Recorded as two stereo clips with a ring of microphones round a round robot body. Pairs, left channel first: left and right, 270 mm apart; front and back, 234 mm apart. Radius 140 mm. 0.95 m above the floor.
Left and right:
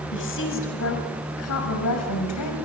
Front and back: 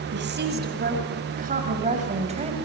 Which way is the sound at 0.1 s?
140° left.